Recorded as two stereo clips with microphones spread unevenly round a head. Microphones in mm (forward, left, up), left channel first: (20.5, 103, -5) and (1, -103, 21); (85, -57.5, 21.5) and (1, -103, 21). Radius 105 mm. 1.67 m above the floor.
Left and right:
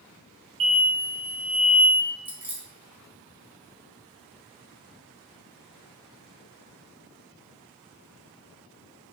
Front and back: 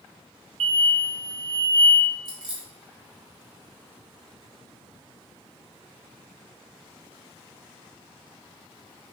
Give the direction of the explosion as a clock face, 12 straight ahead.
5 o'clock.